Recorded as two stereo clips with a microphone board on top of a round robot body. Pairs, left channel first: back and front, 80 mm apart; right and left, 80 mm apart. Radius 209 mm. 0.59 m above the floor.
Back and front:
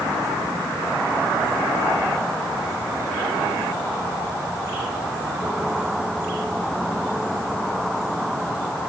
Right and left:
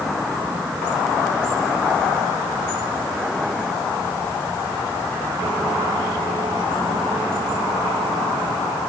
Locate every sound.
Only background noise.